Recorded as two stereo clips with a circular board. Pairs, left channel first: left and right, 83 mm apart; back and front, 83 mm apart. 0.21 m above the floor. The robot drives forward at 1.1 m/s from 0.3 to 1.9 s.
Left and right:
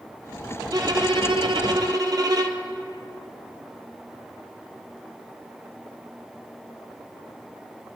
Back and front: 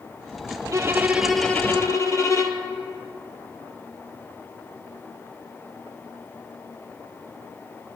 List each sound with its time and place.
0.7 s a violin: 50° right, 1.1 m; by 2.6 s 130° right, 1.0 m